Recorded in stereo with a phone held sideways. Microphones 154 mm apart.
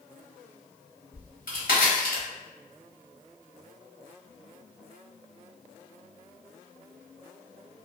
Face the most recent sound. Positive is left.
turn(degrees=70)  # may be behind; listen again after turning